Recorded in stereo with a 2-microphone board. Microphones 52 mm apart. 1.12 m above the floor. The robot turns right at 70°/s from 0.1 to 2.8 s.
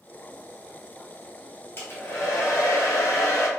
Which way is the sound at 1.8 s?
40° left.